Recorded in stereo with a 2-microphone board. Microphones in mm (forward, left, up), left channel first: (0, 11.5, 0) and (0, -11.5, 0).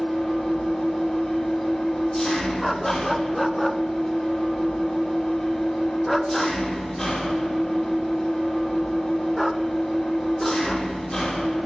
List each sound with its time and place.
0.0 s an engine running: 20° left (ahead or behind), 3 m
2.6 s a dog barking: centre (ahead or behind), 0.5 m